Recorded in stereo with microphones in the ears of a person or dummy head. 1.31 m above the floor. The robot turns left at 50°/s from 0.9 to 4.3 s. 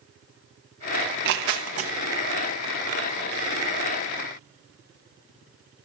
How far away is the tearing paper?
About 1.0 m.